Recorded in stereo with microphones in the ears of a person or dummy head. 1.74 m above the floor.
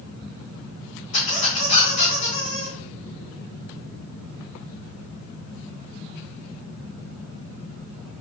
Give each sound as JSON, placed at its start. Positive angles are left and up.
{"t": 1.1, "sound": "a squeak", "side_deg": 45, "distance_m": 1.2}